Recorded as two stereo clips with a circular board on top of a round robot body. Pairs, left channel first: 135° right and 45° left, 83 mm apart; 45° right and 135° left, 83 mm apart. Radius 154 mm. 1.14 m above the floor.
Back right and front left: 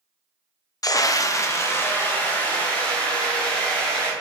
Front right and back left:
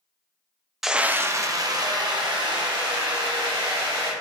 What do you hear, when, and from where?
0.8 s a scream: 140° right, 0.5 m; by 4.1 s 150° left, 2 m